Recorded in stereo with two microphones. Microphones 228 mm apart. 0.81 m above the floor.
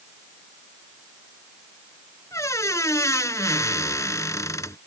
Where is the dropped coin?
No dropped coin in this recording.